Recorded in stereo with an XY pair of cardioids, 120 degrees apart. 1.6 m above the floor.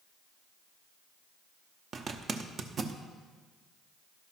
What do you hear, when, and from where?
1.9 s a zipper: 40° right, 0.8 m